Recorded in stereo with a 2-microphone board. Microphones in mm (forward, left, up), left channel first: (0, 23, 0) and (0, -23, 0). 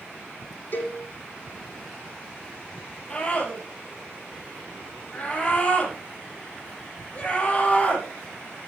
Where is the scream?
25° left (ahead or behind), 7 m.